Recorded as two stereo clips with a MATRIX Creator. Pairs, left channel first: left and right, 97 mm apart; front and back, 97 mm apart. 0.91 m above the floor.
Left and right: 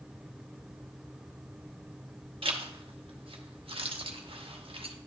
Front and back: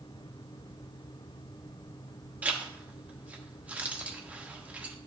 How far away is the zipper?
About 0.9 m.